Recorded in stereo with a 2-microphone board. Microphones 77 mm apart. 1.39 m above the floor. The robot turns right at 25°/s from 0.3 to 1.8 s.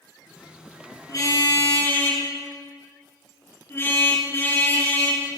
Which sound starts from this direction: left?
A car horn, at 1.1 s.